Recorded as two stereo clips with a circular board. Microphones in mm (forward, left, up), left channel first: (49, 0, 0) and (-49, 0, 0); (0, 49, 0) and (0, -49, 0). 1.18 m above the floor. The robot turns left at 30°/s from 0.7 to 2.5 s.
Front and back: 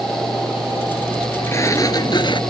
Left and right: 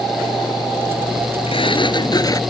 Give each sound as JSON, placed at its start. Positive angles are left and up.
{"t": 1.5, "sound": "a sliding door", "azimuth_deg": 65}